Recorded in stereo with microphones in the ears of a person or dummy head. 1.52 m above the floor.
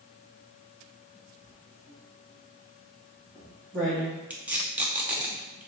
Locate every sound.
1.4 s writing: 15° right (ahead or behind), 1.0 m
4.3 s tape being pulled: 10° right (ahead or behind), 0.8 m